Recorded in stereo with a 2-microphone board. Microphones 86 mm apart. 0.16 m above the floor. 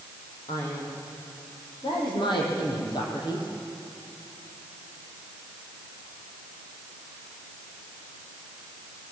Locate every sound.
0.5 s a man speaking: 75° left (ahead or behind), 8 m; by 3.5 s 60° left (ahead or behind), 5 m